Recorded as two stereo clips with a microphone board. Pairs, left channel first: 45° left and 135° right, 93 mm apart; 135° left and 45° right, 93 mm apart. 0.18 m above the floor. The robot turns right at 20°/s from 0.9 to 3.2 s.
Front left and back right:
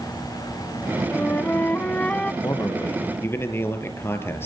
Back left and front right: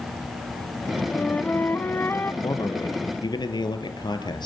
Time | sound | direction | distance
1.1 | a flute | 80° left | 0.9 m
2.4 | a man speaking | 90° left | 3.5 m